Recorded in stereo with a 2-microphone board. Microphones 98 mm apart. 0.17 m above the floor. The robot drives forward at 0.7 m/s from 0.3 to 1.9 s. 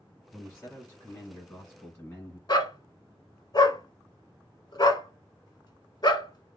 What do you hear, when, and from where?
0.3 s a man speaking: 20° left (ahead or behind), 1.7 m
2.5 s a dog barking: 50° left (ahead or behind), 0.6 m